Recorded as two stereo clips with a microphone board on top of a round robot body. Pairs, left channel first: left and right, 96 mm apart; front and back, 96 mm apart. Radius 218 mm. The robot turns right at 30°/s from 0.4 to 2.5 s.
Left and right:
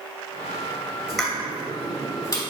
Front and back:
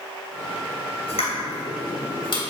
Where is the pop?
Straight ahead, 2.5 m; by 2.4 s 40° left, 2.5 m.